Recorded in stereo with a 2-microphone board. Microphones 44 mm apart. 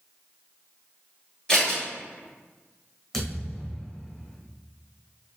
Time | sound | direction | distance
1.5 | scissors | 20° left (ahead or behind) | 1.7 m
3.1 | a thud | 5° left (ahead or behind) | 1.4 m